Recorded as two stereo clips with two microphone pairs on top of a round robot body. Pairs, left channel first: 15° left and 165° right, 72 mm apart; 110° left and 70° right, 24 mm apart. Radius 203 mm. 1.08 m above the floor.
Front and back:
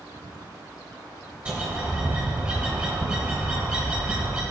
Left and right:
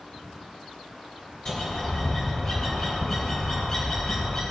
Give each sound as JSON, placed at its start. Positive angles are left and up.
{"t": 1.4, "sound": "a bird", "azimuth_deg": 135, "distance_m": 1.0}